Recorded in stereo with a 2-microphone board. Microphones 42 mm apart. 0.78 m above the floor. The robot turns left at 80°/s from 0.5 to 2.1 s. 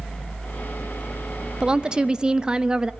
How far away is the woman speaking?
About 0.7 m.